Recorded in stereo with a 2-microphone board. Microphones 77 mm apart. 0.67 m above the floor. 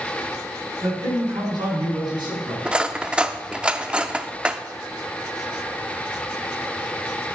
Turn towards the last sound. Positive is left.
turn(degrees=-15)  # may be behind; listen again after turning